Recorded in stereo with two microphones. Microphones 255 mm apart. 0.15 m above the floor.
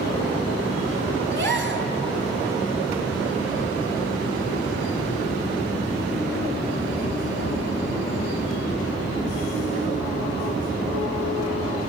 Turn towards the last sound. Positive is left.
turn(degrees=-45)  # may be behind; listen again after turning